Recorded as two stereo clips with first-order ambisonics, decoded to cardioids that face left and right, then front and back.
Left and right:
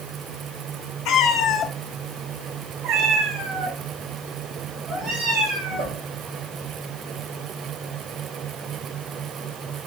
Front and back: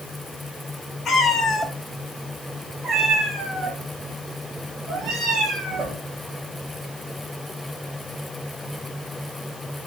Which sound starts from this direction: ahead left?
A cat meowing, at 1.1 s.